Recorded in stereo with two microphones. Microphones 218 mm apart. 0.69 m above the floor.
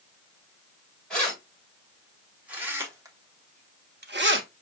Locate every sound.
1.1 s keys jangling: 5° left (ahead or behind), 2 m; by 4.5 s 60° right (ahead or behind), 0.6 m